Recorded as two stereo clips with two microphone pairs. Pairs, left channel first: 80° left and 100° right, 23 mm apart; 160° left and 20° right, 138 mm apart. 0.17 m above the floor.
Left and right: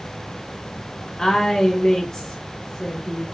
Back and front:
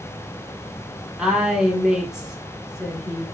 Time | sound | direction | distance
1.2 | a woman speaking | 60° left | 1.3 m